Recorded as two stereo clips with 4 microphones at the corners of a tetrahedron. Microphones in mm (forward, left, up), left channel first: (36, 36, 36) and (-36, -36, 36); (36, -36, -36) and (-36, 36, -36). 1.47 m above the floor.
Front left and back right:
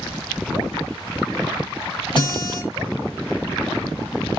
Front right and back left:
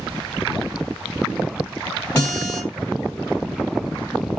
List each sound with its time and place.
2.1 s a guitar: 20° left, 2.0 m